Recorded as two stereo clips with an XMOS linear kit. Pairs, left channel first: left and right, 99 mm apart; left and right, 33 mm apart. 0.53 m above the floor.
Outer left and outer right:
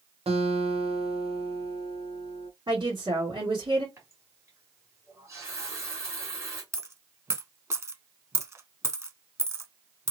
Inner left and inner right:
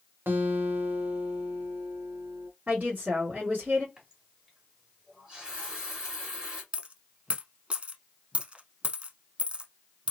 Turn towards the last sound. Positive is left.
turn(degrees=-30)  # may be behind; listen again after turning